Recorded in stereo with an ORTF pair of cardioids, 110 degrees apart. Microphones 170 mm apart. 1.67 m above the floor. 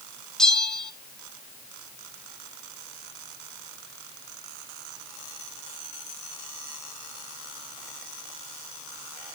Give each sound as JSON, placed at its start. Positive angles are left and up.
{"t": 0.4, "sound": "a bell", "azimuth_deg": 5, "distance_m": 1.1}